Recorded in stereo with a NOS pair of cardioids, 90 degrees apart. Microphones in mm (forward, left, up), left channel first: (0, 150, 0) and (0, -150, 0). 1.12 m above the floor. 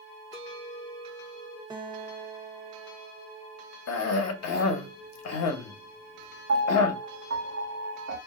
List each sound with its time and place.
0.3 s a clink: 20° left, 0.8 m
1.7 s a guitar: 15° right, 0.9 m
3.9 s a cough: 60° left, 1.0 m
6.5 s a piano: 50° right, 1.5 m